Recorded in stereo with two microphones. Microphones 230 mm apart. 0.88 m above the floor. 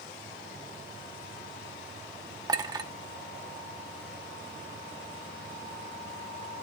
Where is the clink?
20° right (ahead or behind), 0.8 m.